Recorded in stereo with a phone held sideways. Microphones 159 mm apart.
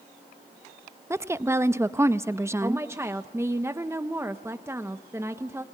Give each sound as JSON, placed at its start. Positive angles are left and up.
{"t": 1.1, "sound": "a woman speaking", "side_deg": -15, "distance_m": 0.6}
{"t": 2.6, "sound": "a woman speaking", "side_deg": -15, "distance_m": 0.8}